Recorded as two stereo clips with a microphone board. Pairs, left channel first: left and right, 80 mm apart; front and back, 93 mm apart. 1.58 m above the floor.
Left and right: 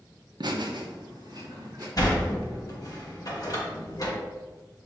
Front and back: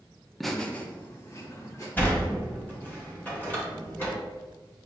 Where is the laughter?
90° right, 0.6 m; by 1.9 s 55° right, 1.3 m.